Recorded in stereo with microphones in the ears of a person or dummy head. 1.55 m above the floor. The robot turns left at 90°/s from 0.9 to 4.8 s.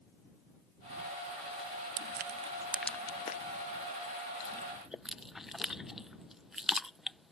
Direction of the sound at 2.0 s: 45° right (ahead or behind).